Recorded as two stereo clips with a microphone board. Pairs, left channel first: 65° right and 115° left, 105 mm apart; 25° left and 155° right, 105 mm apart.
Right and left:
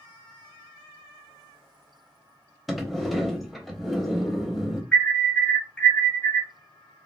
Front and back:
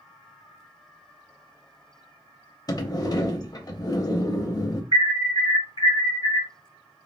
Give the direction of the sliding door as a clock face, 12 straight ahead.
11 o'clock.